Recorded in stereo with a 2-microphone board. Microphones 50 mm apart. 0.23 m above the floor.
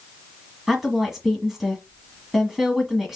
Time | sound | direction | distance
0.7 | a woman speaking | 5° right (ahead or behind) | 1.5 m